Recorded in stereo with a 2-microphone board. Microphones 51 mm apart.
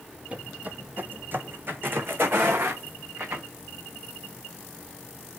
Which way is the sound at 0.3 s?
25° right (ahead or behind).